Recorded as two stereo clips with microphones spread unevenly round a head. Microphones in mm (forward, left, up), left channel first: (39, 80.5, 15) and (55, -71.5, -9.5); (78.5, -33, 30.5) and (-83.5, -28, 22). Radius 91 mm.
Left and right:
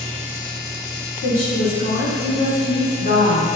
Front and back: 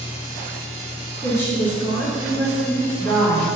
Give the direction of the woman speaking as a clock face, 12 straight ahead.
10 o'clock.